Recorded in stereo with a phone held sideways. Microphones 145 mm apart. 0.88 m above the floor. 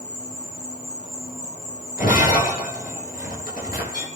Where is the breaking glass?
80° left, 8.5 m.